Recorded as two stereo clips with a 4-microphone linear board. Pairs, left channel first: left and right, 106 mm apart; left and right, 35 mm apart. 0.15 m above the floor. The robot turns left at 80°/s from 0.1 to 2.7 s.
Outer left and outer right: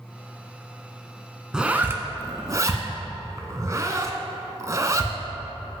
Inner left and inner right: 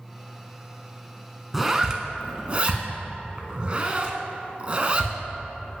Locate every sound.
1.5 s a zipper: 5° right (ahead or behind), 0.5 m; by 5.1 s 30° right (ahead or behind), 0.5 m